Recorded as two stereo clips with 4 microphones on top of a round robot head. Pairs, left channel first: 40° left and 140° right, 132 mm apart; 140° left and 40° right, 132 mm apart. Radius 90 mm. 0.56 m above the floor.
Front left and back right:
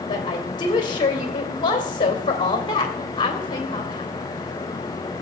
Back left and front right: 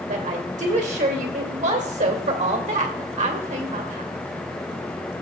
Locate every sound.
0.1 s a woman speaking: 15° right, 2.5 m